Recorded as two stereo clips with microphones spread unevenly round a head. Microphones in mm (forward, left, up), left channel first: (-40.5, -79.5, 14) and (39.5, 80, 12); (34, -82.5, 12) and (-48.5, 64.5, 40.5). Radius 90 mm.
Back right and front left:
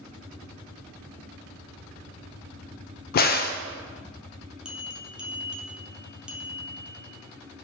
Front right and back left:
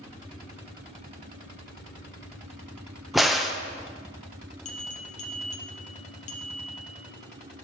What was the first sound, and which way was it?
A crack, 145° right.